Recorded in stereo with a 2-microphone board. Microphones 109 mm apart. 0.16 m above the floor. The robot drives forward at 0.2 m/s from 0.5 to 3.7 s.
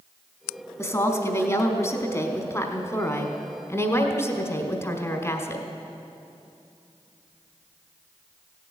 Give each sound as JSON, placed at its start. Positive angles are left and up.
{"t": 0.8, "sound": "a woman speaking", "side_deg": 25, "distance_m": 1.3}